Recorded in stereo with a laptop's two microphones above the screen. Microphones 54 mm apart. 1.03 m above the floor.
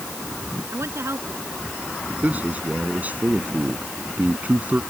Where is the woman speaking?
55° right (ahead or behind).